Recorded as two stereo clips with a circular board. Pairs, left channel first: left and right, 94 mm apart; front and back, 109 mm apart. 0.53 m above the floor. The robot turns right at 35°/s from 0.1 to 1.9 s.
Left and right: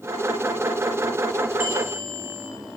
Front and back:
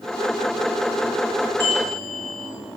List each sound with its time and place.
1.6 s a bell: 70° left, 3 m; by 2.5 s 80° left, 3 m